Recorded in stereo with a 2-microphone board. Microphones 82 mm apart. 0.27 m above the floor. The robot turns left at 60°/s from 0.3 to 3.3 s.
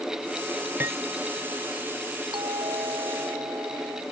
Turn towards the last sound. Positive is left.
turn(degrees=-135)